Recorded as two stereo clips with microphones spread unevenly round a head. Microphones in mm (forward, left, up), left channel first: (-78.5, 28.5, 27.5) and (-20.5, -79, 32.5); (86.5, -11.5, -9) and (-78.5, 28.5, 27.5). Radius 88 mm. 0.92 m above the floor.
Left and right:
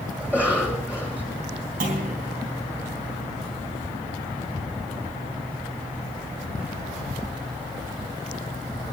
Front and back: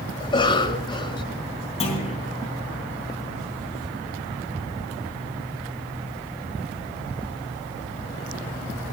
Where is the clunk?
75° right, 3.5 m.